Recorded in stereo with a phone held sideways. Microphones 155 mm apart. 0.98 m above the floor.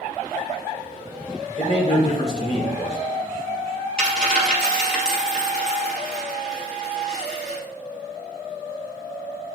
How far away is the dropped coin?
About 2 m.